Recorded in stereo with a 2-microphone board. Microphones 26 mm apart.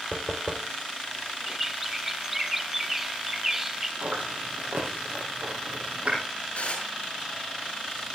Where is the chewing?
70° right (ahead or behind), 5 m.